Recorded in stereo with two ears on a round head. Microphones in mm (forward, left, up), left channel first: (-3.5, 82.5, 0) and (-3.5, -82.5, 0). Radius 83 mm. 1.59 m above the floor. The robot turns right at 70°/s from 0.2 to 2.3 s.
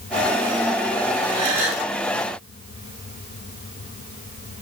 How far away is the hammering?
No hammering in this recording.